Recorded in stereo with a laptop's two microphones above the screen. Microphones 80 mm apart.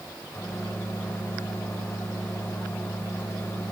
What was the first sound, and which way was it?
A microwave, 25° left (ahead or behind).